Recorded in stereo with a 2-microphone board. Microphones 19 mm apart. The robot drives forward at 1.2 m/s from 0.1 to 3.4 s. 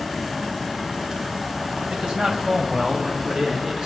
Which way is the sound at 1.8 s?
60° right (ahead or behind).